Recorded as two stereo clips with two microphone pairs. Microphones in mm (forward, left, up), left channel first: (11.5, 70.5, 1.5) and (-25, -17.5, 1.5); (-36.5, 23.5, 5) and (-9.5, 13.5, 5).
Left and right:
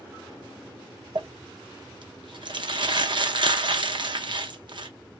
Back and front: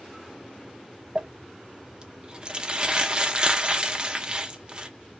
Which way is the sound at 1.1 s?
85° right.